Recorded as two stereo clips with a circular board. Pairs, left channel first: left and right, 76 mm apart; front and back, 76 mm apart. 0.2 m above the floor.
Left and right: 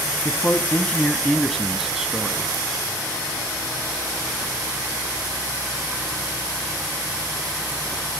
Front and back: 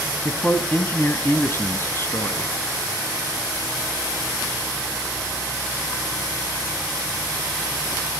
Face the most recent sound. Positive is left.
turn(degrees=-25)